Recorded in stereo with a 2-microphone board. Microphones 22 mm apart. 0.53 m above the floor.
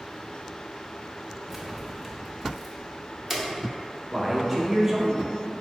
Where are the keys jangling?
20° right (ahead or behind), 0.6 m.